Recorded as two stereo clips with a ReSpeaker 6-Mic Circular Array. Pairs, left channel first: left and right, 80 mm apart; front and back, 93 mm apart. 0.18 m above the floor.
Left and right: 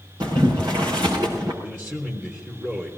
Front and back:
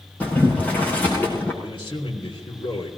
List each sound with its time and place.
0.2 s boiling: 75° right, 5.5 m
1.6 s a man speaking: 25° right, 3.5 m